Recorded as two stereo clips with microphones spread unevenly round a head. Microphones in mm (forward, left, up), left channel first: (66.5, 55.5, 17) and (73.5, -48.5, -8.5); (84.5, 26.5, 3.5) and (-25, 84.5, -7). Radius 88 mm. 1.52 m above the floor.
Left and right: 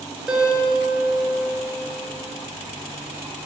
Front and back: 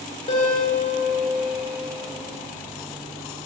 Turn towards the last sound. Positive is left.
turn(degrees=0)